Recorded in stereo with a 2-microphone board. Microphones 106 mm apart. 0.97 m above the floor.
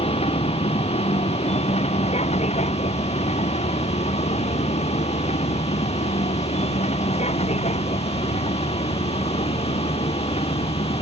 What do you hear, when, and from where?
0.0 s a vehicle: 70° left (ahead or behind); by 11.0 s 75° left (ahead or behind)